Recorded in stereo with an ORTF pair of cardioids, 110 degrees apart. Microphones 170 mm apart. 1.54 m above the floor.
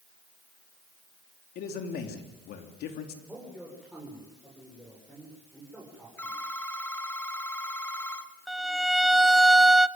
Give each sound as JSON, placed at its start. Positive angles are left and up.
{"t": 1.6, "sound": "a man speaking", "azimuth_deg": 70, "distance_m": 3.5}
{"t": 3.3, "sound": "a man speaking", "azimuth_deg": 0, "distance_m": 7.0}
{"t": 6.2, "sound": "a phone ringing", "azimuth_deg": 10, "distance_m": 1.8}
{"t": 8.5, "sound": "a violin", "azimuth_deg": 0, "distance_m": 0.7}